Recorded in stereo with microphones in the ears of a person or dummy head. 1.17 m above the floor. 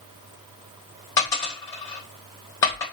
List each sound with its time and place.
1.2 s a dropped coin: 10° left (ahead or behind), 0.5 m